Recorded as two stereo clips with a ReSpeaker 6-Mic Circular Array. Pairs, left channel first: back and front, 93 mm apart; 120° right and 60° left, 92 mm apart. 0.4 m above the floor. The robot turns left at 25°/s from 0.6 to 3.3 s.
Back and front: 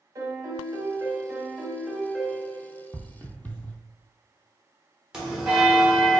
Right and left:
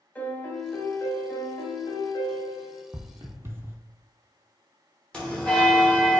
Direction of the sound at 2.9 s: 125° left.